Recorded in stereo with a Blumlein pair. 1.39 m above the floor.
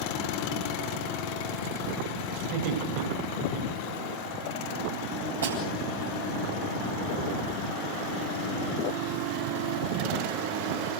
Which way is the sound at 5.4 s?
65° right.